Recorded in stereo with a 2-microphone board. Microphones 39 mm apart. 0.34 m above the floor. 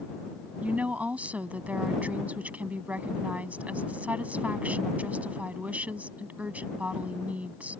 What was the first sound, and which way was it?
A woman speaking, 40° right (ahead or behind).